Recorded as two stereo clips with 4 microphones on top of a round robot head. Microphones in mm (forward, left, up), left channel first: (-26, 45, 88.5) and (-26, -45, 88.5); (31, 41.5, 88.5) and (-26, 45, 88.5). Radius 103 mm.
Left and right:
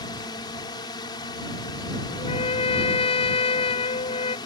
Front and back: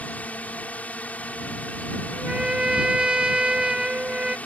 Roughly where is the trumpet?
Left.